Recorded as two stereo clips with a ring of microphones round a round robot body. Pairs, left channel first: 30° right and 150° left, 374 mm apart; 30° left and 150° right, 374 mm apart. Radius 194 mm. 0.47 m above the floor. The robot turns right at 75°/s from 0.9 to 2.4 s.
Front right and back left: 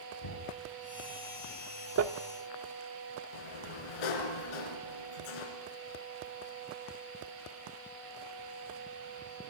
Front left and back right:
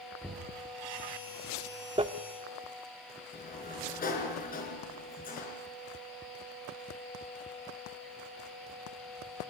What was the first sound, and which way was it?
Knocking, 60° right.